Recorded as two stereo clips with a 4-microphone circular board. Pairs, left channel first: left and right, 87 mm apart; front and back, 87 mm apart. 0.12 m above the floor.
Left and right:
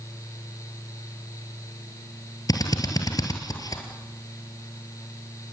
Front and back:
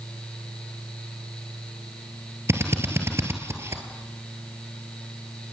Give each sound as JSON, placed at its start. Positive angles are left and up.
{"t": 2.5, "sound": "a drill", "azimuth_deg": 125, "distance_m": 2.5}